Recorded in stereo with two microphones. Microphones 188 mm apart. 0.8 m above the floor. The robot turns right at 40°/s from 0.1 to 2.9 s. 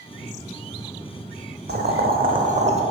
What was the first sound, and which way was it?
Boiling, 80° right.